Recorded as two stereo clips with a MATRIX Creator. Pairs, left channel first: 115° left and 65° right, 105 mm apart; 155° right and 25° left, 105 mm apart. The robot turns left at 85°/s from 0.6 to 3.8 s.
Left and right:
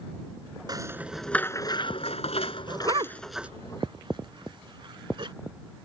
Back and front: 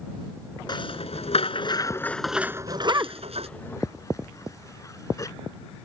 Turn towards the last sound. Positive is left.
turn(degrees=-100)